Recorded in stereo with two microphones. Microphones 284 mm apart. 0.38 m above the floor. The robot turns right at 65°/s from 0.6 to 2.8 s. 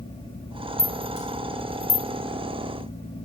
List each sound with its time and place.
0.8 s a rattle: 5° left (ahead or behind), 0.7 m; by 2.1 s 50° left (ahead or behind), 0.7 m